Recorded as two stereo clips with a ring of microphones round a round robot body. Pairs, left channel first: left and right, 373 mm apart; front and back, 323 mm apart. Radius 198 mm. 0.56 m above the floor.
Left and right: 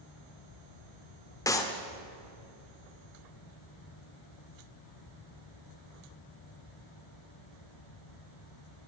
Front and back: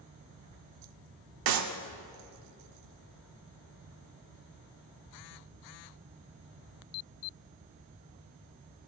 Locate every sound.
1.5 s a clap: 170° left, 1.0 m